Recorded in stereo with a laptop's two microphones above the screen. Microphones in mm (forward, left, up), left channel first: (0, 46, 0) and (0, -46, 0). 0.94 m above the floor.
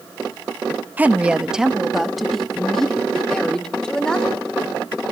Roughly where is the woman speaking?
Centre.